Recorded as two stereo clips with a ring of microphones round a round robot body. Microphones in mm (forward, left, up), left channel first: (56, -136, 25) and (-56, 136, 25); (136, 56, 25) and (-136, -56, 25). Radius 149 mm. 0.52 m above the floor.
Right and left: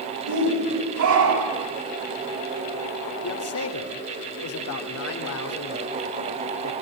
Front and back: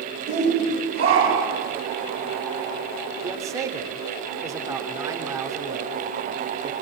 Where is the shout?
135° left, 3 m; by 1.7 s 130° left, 4.5 m.